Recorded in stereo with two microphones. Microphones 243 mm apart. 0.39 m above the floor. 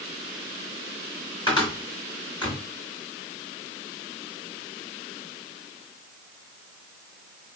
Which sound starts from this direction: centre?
A cupboard door, at 1.5 s.